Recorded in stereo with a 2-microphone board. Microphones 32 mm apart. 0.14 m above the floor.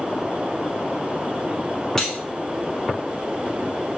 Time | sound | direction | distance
2.0 | cutlery clinking | 15° left (ahead or behind) | 0.7 m